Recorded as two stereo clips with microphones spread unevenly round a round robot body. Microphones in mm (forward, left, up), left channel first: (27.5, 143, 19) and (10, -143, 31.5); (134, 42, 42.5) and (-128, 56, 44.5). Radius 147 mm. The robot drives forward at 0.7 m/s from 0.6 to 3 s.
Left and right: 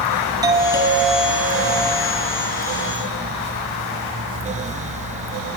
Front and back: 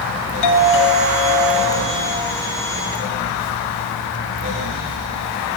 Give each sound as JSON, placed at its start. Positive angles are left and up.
{"t": 0.4, "sound": "a doorbell", "azimuth_deg": -15, "distance_m": 9.5}